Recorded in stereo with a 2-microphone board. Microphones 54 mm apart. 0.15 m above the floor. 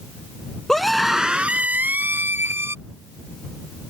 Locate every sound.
0.7 s a scream: 10° left (ahead or behind); by 2.8 s 50° right (ahead or behind)